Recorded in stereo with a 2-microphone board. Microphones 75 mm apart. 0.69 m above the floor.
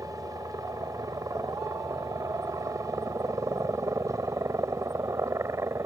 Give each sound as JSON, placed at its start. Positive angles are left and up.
{"t": 0.0, "sound": "a helicopter", "side_deg": -50}